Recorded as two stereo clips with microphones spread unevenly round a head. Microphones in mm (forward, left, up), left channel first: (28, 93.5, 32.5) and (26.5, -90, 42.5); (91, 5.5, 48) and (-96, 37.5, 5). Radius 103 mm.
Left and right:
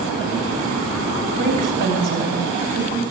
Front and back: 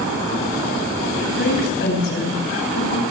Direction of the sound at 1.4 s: 55° right.